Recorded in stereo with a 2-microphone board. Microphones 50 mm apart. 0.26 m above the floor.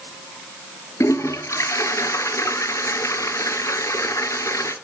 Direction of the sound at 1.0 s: 80° left.